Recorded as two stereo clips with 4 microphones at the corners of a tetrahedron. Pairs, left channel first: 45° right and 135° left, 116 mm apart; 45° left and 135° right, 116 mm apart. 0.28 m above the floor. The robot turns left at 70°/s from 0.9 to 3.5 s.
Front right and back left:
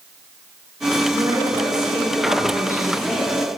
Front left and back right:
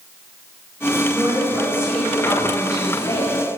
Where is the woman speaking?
160° right, 1.7 m; by 3.4 s 35° left, 1.7 m.